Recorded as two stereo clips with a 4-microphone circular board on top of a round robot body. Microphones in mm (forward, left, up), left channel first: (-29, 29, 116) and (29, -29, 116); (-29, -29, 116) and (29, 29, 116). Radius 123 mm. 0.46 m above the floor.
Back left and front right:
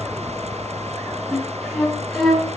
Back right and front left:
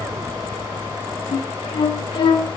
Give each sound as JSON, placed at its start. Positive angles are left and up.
{"t": 1.3, "sound": "a flute", "azimuth_deg": -140, "distance_m": 5.5}